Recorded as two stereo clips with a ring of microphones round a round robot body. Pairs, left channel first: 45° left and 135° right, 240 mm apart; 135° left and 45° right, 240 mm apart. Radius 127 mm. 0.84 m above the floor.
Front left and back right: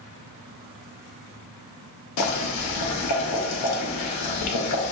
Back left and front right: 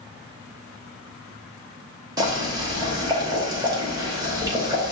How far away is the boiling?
About 0.9 m.